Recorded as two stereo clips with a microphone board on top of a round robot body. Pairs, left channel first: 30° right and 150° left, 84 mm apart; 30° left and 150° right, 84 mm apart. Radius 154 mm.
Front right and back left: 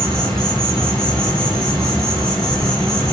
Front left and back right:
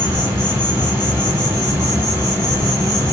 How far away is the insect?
About 1.5 m.